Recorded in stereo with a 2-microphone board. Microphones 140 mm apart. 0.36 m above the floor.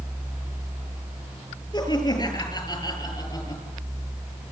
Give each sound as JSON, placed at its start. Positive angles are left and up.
{"t": 1.7, "sound": "laughter", "side_deg": 30, "distance_m": 9.0}